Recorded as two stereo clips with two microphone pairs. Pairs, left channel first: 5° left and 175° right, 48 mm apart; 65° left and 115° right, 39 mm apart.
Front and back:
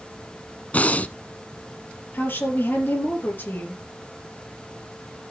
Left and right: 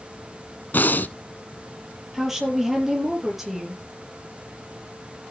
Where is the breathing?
55° left, 0.7 m.